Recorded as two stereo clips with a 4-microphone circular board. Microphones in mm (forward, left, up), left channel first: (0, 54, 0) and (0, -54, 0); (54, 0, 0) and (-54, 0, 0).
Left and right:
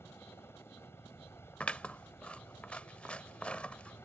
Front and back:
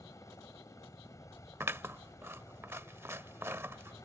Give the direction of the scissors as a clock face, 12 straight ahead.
7 o'clock.